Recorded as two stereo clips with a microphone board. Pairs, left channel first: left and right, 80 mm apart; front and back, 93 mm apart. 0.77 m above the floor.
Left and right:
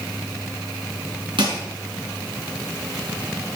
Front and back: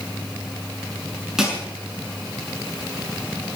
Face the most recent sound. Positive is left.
turn(degrees=-95)